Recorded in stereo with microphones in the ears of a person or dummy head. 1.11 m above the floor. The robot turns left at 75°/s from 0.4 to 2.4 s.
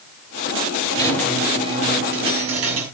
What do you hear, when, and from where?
0.9 s a squeak: 25° left, 6.5 m; by 2.9 s 85° right, 6.5 m